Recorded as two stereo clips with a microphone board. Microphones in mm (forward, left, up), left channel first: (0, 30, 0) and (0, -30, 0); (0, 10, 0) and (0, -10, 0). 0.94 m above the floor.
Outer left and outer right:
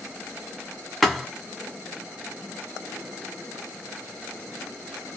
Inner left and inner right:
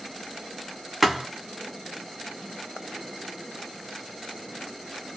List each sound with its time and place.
1.0 s a thud: 5° left (ahead or behind), 0.8 m